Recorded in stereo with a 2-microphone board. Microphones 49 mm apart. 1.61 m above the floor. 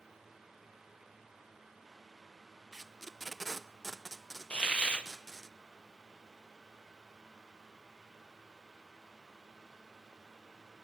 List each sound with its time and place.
2.7 s tape being pulled: 5° left (ahead or behind), 0.5 m
4.5 s a hiss: 20° left (ahead or behind), 0.9 m